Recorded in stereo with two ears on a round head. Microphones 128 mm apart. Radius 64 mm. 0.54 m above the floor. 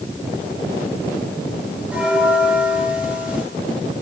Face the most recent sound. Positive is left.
turn(degrees=-10)  # may be behind; listen again after turning